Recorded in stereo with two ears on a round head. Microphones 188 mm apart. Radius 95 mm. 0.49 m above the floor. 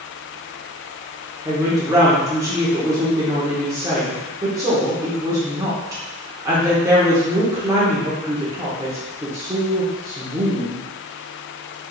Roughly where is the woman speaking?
Centre.